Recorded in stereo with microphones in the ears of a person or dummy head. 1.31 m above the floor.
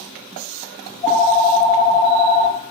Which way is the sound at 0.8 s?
25° left (ahead or behind).